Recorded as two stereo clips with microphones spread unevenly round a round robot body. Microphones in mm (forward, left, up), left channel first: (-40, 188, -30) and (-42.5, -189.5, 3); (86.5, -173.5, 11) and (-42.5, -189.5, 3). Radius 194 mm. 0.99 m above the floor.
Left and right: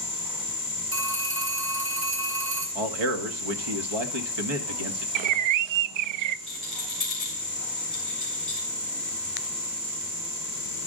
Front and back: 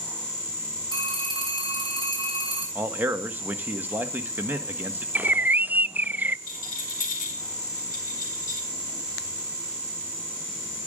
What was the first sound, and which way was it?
A phone ringing, 50° right.